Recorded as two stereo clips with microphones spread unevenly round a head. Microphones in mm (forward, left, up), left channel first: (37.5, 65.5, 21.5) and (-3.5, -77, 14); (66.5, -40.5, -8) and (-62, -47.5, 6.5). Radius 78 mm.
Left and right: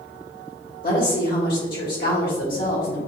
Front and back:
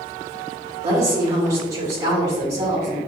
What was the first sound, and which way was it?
A woman speaking, 110° left.